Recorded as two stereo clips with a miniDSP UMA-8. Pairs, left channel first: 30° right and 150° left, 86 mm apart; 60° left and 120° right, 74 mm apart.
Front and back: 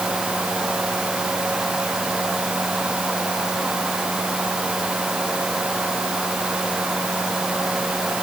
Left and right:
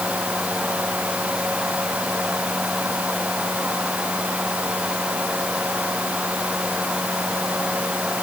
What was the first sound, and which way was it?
Only background noise.